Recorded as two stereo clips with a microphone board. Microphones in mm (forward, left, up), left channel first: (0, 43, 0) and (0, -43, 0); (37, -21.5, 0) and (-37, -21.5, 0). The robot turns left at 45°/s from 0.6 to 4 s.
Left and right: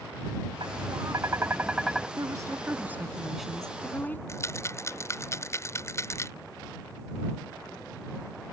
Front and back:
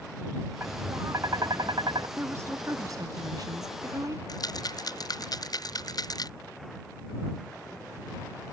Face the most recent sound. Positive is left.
turn(degrees=30)